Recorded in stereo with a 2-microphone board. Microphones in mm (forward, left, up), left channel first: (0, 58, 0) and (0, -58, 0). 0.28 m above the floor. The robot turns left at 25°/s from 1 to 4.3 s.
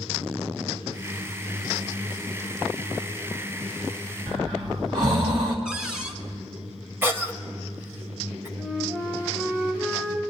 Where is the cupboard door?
5° right (ahead or behind), 1.2 m.